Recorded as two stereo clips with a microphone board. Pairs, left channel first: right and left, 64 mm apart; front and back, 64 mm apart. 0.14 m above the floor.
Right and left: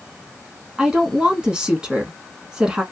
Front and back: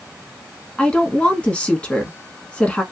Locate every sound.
0.8 s a woman speaking: 35° left, 1.1 m